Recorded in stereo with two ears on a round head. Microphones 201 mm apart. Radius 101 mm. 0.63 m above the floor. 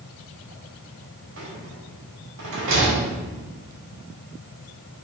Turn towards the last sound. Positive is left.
turn(degrees=-60)  # may be behind; listen again after turning